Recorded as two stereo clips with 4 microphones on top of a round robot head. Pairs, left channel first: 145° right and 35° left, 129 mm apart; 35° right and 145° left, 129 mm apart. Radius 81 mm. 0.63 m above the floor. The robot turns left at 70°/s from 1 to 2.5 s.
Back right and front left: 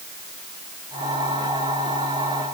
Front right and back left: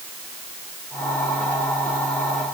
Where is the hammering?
I don't hear hammering.